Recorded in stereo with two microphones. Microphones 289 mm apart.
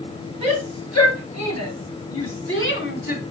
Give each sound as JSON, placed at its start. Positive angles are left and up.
{"t": 0.4, "sound": "a shout", "side_deg": 75, "distance_m": 5.0}